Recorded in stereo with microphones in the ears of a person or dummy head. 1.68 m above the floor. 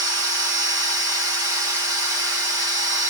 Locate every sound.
0.0 s a machine running: 70° right (ahead or behind), 2 m